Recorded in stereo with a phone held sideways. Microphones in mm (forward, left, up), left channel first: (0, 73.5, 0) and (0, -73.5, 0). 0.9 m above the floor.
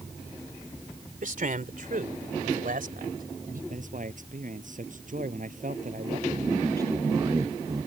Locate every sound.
1.2 s a man speaking: 65° right (ahead or behind); by 3.6 s 75° right (ahead or behind)
3.7 s a man speaking: 60° right (ahead or behind)
6.3 s a man speaking: 25° right (ahead or behind)